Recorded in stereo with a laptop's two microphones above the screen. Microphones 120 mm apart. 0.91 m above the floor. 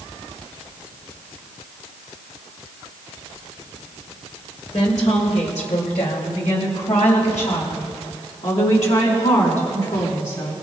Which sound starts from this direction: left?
A woman speaking, at 4.7 s.